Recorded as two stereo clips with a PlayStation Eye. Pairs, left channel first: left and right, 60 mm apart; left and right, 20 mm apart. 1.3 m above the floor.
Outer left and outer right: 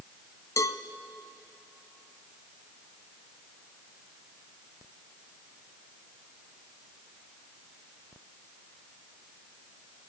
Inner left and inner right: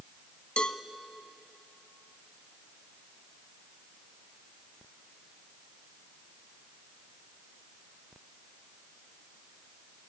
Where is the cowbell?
55° left (ahead or behind), 0.9 m.